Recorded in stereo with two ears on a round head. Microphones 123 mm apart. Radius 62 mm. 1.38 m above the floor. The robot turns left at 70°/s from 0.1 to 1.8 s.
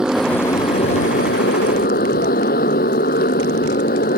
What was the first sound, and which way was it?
A motorcycle, 175° right.